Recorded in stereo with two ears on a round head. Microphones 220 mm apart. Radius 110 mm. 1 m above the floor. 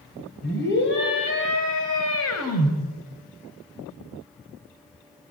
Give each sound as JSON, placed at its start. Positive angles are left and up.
{"t": 0.4, "sound": "a scream", "side_deg": 40, "distance_m": 4.5}